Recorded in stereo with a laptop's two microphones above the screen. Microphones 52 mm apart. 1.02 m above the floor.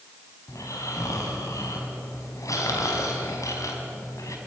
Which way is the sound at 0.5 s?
80° left.